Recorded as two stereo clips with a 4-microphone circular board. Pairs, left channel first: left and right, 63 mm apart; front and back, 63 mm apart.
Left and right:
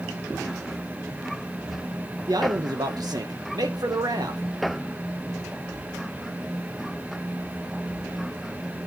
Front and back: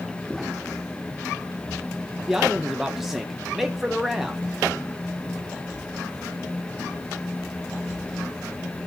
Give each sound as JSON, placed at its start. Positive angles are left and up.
{"t": 2.3, "sound": "a man speaking", "azimuth_deg": -95, "distance_m": 0.8}